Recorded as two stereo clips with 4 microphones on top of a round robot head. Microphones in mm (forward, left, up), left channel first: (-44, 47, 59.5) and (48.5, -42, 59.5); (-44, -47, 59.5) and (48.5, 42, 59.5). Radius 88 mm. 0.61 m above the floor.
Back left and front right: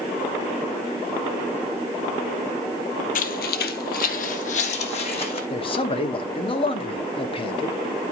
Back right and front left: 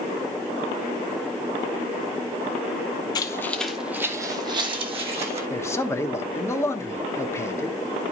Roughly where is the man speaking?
Behind.